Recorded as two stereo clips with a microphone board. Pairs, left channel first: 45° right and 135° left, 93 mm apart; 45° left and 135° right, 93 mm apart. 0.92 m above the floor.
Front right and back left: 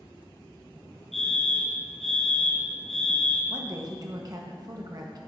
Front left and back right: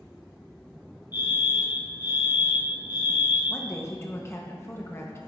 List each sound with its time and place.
1.1 s a fire alarm: 40° left, 1.9 m
3.5 s a woman speaking: 100° left, 0.7 m